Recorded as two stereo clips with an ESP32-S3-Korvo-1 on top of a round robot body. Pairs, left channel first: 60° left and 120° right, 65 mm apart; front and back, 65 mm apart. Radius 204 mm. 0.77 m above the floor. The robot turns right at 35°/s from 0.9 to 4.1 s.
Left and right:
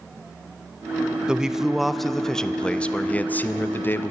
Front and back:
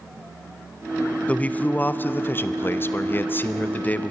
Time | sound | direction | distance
1.3 | a man speaking | 50° right | 0.6 m